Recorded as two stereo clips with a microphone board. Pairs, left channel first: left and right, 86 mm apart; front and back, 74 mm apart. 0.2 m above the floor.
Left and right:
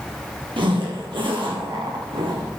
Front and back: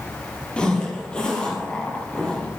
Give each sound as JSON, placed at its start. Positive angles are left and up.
{"t": 0.6, "sound": "a zipper", "azimuth_deg": -75, "distance_m": 3.0}